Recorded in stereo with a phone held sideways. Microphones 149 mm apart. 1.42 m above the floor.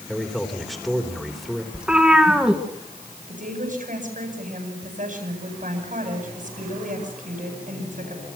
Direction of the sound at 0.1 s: Centre (ahead or behind).